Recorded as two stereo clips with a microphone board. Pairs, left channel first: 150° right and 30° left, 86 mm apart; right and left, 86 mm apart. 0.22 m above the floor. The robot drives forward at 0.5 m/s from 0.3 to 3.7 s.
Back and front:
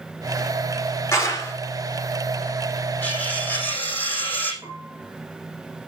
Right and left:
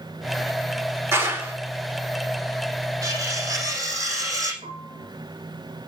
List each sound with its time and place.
1.1 s a clap: 150° left, 4 m; by 1.5 s 155° left, 4 m
3.0 s cutlery clinking: 140° left, 5.5 m
4.6 s a piano: 75° left, 2 m